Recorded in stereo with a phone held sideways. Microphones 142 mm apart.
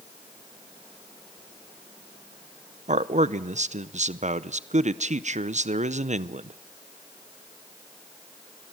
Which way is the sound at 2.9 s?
55° right (ahead or behind).